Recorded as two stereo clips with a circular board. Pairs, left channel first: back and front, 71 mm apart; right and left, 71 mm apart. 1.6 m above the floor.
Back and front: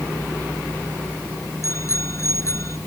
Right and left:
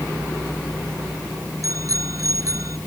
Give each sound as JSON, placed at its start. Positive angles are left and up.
{"t": 1.6, "sound": "a bicycle bell", "azimuth_deg": 130}